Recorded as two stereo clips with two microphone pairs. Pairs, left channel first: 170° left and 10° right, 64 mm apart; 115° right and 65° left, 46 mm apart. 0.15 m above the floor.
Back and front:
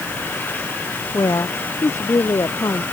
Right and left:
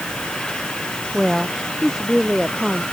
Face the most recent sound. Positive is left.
turn(degrees=145)